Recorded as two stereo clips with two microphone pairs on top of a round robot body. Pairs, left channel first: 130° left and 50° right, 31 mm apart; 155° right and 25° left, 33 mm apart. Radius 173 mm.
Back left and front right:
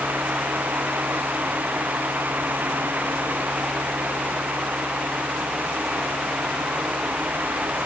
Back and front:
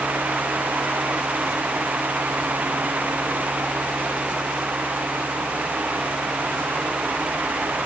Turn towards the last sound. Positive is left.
No sound to turn to.